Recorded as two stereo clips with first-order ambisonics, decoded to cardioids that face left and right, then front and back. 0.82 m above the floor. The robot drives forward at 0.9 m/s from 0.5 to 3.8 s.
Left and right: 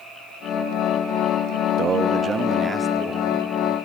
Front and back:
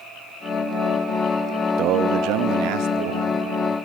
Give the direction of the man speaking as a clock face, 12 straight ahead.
5 o'clock.